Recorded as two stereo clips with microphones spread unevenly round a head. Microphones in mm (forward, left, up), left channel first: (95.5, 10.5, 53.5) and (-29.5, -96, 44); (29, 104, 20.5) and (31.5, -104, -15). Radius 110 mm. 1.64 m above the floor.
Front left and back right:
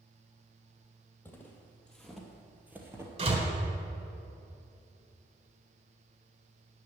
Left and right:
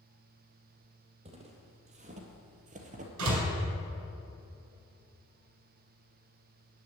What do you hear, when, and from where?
1.2 s footsteps: 30° right, 2.5 m; by 3.1 s 85° right, 1.7 m
3.2 s a door slam: 90° right, 4 m